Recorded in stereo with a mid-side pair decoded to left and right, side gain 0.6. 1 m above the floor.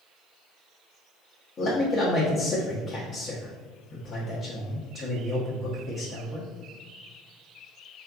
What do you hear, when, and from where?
1.6 s a man speaking: 45° left, 1.2 m